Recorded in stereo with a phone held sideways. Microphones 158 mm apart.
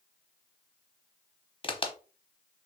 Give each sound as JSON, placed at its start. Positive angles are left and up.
{"t": 1.6, "sound": "a crack", "side_deg": 35, "distance_m": 0.9}